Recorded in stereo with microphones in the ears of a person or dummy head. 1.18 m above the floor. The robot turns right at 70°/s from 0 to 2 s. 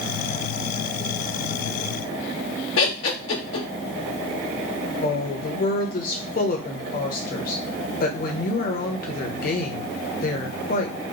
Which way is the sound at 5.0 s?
45° left (ahead or behind).